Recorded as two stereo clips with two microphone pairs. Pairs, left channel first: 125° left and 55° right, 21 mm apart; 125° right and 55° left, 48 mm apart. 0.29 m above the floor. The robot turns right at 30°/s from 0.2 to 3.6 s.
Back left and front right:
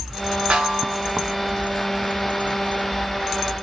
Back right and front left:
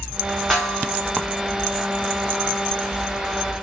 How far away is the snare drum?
About 1.1 m.